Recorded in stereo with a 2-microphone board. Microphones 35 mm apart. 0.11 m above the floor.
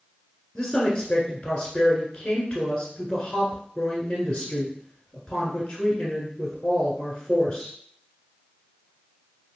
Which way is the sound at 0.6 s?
20° left (ahead or behind).